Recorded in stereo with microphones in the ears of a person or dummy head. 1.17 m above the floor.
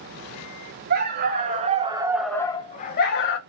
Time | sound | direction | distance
0.9 | a dog barking | 50° right (ahead or behind) | 2.5 m